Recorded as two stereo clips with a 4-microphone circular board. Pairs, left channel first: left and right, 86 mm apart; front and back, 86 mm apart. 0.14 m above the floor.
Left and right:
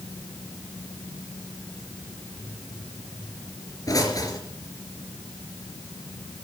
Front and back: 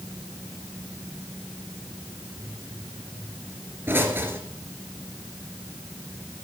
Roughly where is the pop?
Behind left.